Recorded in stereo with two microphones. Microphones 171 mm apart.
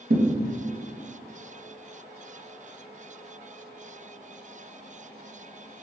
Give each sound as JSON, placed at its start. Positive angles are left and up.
{"t": 0.1, "sound": "a thud", "side_deg": -65, "distance_m": 0.8}